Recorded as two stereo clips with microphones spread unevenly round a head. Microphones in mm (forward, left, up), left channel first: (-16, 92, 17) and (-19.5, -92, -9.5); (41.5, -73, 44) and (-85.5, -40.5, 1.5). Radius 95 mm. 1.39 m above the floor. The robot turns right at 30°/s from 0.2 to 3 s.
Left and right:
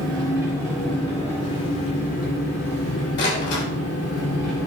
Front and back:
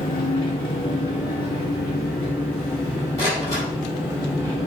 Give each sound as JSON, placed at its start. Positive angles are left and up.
{"t": 0.0, "sound": "an engine running", "azimuth_deg": -20, "distance_m": 3.0}
{"t": 3.2, "sound": "a door slam", "azimuth_deg": 55, "distance_m": 3.5}